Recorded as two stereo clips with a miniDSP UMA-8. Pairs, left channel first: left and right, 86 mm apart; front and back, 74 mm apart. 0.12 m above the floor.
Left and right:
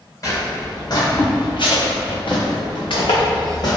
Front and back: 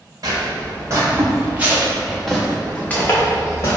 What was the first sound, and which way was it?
Footsteps, 140° left.